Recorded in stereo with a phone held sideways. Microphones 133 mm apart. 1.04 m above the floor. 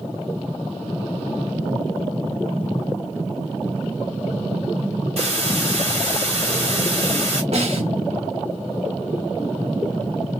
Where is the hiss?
55° right (ahead or behind), 1.8 m.